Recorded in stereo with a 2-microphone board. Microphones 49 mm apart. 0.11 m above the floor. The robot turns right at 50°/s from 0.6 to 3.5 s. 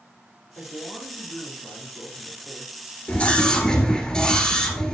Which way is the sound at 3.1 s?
30° left (ahead or behind).